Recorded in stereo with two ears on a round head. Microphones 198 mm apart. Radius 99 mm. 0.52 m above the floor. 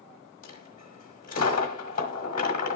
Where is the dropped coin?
40° left (ahead or behind), 1.3 m.